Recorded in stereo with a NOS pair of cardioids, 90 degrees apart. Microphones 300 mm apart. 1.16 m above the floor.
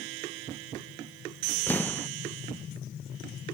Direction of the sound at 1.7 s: 5° left.